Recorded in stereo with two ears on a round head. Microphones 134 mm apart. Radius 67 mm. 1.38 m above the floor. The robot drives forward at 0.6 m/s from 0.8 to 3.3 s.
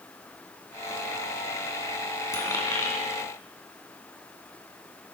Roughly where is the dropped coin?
Left.